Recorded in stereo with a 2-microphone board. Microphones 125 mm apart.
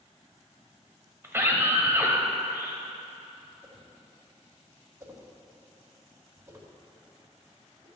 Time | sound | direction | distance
1.2 | a scream | 20° right (ahead or behind) | 1.0 m
3.6 | a whoosh | 25° right (ahead or behind) | 1.8 m